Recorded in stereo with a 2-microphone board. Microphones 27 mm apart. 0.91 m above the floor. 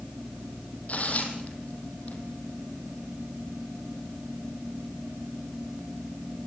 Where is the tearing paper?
65° left (ahead or behind), 5 m.